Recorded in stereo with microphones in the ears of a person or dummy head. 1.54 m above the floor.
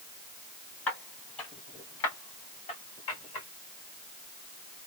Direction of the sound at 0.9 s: 10° left (ahead or behind).